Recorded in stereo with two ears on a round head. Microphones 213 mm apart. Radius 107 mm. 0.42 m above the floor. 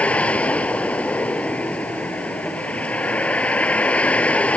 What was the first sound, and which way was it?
A vehicle, 5° left (ahead or behind).